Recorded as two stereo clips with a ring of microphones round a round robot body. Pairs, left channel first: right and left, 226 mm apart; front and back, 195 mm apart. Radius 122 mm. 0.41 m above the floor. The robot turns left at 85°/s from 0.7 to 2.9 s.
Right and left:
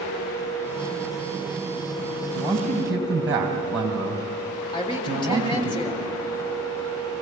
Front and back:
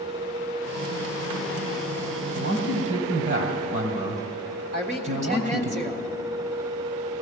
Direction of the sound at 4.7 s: 150° right.